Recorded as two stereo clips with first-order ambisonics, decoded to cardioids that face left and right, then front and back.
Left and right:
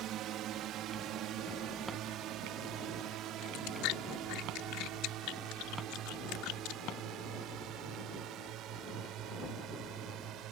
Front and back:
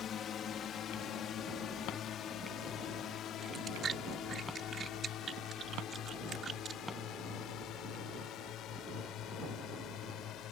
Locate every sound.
0.0 s a drone: 55° right; by 10.5 s 45° right
3.4 s chewing: 115° left